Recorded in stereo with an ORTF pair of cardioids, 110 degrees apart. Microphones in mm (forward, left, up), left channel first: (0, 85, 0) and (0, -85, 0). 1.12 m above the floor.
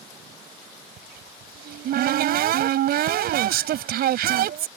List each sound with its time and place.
1.0 s a cupboard door: 65° right